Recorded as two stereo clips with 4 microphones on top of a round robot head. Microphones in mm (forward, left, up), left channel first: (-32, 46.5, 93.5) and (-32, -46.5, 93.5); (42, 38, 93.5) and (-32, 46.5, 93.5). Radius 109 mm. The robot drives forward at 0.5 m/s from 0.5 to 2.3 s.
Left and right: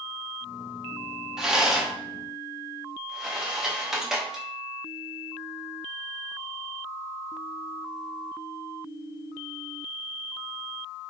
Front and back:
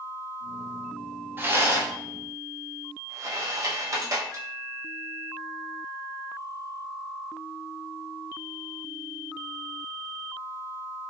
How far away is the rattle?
About 0.9 m.